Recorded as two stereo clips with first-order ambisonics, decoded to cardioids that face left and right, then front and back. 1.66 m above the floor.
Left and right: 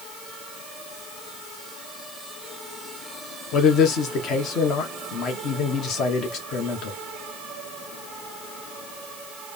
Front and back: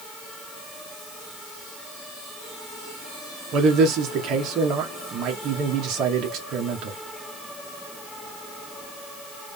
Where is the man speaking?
135° left, 1.3 m.